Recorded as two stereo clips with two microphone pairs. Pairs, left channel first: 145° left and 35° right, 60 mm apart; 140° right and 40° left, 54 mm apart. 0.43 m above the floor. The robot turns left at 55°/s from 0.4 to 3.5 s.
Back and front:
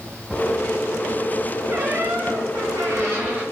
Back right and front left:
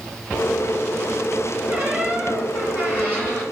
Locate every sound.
1.7 s a squeak: 10° right, 1.7 m; by 3.4 s 105° right, 1.7 m